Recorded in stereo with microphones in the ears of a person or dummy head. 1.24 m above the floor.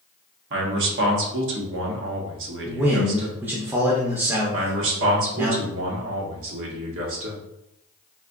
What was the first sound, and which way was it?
A man speaking, 65° right (ahead or behind).